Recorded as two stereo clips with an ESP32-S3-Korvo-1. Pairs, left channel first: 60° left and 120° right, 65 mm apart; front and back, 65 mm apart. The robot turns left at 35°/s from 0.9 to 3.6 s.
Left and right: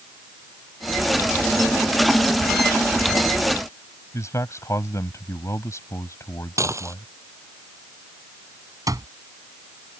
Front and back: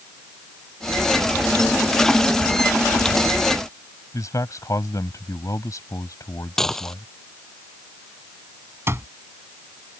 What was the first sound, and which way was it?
A man speaking, 25° left.